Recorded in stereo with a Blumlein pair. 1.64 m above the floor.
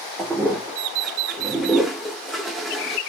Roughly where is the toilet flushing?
Ahead.